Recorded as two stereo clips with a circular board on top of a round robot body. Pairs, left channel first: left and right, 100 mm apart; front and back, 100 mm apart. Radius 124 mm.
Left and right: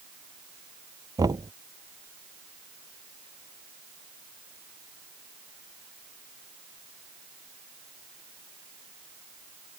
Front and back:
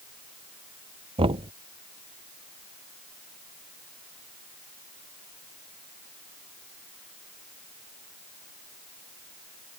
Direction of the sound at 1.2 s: 145° right.